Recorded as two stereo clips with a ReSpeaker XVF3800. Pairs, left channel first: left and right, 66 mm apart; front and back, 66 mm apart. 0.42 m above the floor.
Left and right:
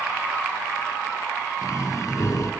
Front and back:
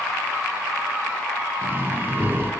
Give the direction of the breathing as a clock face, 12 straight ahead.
8 o'clock.